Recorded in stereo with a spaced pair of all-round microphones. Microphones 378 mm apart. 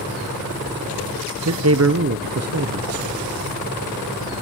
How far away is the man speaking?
About 0.6 m.